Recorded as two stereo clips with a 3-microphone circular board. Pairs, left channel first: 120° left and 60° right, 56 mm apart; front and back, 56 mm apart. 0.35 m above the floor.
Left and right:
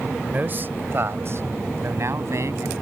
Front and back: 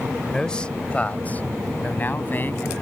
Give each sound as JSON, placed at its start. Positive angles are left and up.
{"t": 0.3, "sound": "a man speaking", "azimuth_deg": -70}